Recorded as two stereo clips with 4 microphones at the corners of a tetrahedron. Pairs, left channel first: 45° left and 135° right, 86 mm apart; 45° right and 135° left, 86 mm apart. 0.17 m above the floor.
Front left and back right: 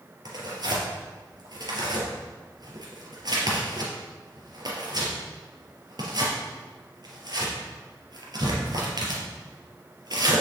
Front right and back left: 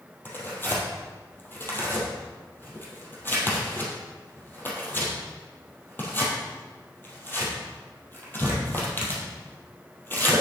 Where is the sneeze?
No sneeze in this recording.